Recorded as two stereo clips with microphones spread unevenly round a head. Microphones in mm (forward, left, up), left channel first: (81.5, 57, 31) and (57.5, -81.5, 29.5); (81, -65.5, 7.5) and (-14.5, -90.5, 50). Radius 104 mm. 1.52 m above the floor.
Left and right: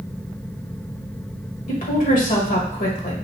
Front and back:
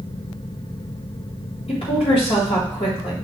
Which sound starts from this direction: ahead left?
A woman speaking, at 1.7 s.